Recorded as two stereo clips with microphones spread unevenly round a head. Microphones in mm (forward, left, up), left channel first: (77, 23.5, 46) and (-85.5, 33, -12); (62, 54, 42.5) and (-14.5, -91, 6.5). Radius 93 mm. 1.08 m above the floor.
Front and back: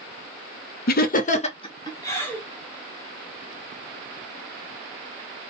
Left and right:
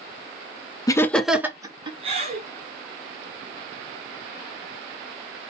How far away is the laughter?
About 0.6 m.